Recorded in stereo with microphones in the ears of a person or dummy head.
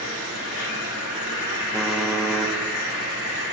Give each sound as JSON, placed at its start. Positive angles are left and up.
{"t": 0.0, "sound": "an insect", "side_deg": 75, "distance_m": 2.5}
{"t": 1.7, "sound": "typing on a keyboard", "side_deg": -5, "distance_m": 0.5}